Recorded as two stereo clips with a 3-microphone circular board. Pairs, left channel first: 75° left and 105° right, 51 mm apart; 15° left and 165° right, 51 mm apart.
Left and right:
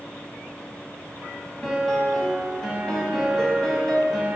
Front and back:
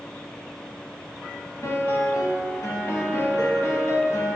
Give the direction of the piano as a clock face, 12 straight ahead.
12 o'clock.